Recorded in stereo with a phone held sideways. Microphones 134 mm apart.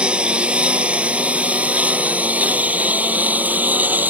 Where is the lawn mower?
10° right (ahead or behind).